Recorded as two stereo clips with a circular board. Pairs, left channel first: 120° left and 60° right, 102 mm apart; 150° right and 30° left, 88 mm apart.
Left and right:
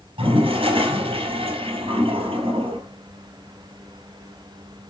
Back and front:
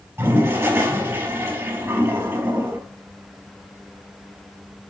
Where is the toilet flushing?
35° right, 3.5 m.